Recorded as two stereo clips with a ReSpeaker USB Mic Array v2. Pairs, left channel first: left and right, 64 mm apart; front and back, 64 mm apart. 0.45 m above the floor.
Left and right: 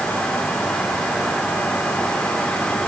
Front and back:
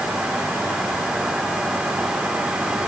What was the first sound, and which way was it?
Only background noise.